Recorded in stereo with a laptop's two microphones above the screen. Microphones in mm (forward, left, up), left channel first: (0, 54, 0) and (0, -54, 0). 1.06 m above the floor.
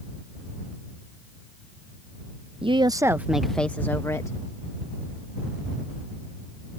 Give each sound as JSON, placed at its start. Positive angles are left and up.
{"t": 2.6, "sound": "a woman speaking", "side_deg": -55}